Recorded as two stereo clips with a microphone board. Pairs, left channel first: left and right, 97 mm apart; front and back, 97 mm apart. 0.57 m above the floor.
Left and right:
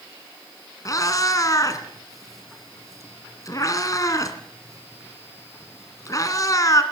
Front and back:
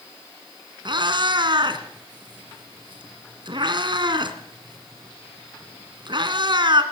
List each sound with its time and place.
0.8 s a cat meowing: 145° left, 2 m